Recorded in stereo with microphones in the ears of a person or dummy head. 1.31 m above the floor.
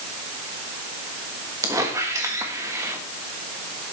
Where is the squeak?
15° right (ahead or behind), 1.3 m.